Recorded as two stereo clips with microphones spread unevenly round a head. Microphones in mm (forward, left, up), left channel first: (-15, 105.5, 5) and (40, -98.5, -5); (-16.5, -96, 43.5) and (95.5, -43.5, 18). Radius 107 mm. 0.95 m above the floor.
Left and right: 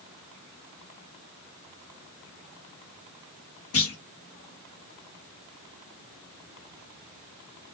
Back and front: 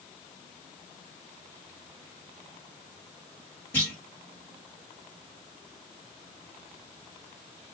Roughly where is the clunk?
Behind left.